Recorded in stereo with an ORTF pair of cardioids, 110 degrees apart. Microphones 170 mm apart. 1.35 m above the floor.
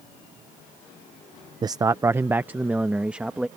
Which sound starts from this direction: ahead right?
A man speaking, at 1.6 s.